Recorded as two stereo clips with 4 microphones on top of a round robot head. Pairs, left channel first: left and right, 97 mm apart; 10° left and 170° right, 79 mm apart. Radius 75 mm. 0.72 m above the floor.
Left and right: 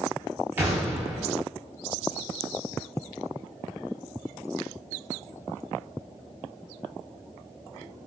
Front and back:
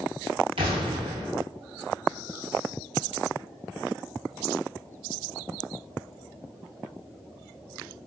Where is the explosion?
165° right, 0.5 m.